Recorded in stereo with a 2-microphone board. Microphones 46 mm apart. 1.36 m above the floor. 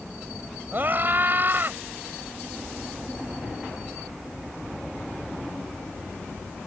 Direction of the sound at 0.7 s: 40° right (ahead or behind).